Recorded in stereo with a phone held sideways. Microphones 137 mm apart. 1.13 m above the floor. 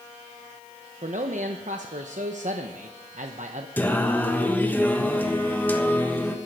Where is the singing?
15° left (ahead or behind), 1.3 m.